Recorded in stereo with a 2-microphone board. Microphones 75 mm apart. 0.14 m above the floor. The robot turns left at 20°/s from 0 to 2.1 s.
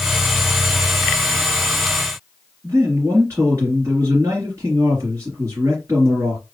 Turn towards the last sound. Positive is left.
turn(degrees=-45)  # may be behind; listen again after turning